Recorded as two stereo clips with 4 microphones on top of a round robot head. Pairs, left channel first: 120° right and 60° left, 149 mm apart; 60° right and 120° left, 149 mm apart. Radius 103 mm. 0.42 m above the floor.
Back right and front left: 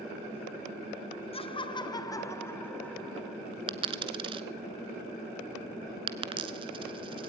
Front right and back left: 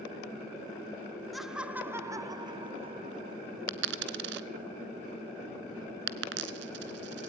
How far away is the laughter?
About 1.3 m.